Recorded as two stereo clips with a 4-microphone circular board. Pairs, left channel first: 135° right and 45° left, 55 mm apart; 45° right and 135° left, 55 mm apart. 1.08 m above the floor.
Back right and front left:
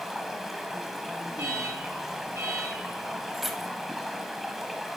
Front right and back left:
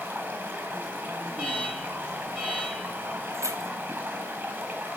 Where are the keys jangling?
130° left, 0.6 m.